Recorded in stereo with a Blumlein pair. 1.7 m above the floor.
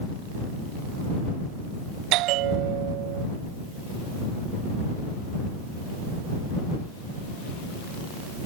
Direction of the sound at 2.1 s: 40° right.